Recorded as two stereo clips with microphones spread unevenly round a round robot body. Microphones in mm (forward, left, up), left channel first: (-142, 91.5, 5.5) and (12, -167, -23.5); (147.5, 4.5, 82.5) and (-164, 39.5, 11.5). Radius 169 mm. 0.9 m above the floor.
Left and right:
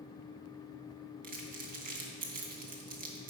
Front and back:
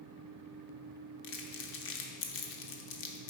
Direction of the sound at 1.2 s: Straight ahead.